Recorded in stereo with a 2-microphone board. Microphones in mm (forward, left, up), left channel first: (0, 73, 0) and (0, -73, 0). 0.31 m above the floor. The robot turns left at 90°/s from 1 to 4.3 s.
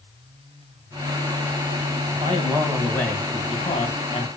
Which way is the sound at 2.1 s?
115° right.